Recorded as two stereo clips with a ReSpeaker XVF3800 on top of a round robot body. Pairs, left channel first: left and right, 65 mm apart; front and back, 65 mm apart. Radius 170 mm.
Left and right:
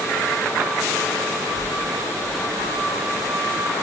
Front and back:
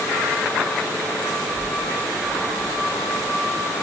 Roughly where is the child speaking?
Behind left.